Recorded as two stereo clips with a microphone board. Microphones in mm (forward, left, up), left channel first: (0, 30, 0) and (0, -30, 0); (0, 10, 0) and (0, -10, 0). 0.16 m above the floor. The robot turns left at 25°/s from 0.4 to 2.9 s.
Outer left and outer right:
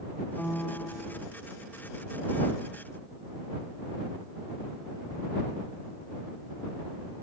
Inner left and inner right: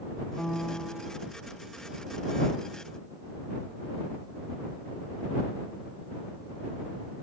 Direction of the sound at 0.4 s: 20° left (ahead or behind).